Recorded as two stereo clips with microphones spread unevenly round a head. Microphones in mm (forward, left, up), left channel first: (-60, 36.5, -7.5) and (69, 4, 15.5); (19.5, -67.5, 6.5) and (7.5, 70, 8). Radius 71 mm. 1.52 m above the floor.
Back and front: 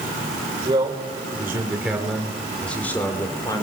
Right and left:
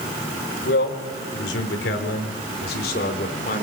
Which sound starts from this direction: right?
A man speaking, at 0.7 s.